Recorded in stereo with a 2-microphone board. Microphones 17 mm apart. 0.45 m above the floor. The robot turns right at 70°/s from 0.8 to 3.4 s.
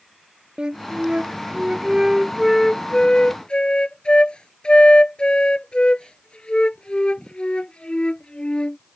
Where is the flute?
110° right; by 8.8 s 70° left.